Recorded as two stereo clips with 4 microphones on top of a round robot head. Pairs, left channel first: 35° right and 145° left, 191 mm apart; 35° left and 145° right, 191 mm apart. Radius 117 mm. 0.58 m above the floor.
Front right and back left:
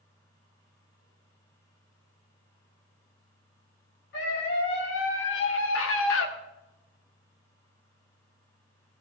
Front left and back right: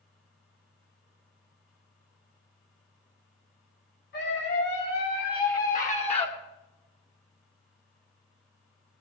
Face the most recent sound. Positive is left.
turn(degrees=-30)